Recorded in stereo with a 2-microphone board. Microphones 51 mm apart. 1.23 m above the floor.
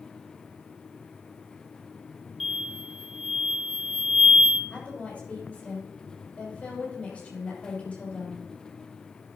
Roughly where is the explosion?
Centre.